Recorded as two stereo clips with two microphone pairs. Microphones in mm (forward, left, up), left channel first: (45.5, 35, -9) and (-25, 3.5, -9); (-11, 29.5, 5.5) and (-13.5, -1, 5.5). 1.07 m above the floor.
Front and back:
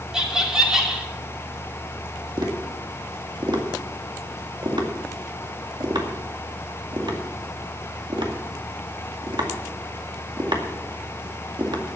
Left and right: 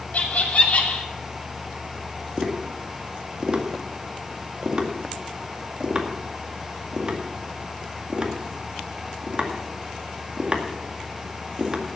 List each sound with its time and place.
0.1 s laughter: 125° left, 2.5 m
2.4 s tapping: 150° right, 2 m